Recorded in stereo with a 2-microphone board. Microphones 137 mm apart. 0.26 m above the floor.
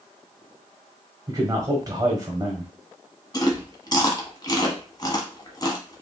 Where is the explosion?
No explosion in this recording.